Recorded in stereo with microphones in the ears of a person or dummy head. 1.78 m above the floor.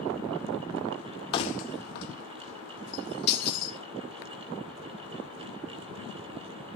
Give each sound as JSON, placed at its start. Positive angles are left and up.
{"t": 1.3, "sound": "keys jangling", "side_deg": 25, "distance_m": 1.0}